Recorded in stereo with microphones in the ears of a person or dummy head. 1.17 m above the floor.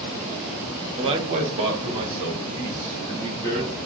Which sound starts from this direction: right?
A man speaking, at 1.0 s.